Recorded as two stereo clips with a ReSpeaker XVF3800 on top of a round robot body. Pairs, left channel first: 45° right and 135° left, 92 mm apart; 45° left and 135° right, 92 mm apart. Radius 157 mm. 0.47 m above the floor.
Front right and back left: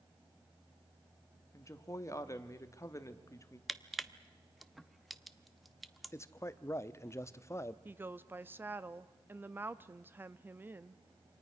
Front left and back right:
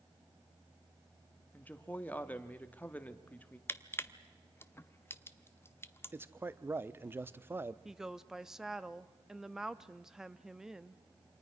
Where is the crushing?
45° left, 1.0 m.